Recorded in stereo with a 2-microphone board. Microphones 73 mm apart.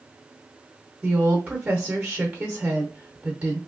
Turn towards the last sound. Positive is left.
turn(degrees=-15)  # may be behind; listen again after turning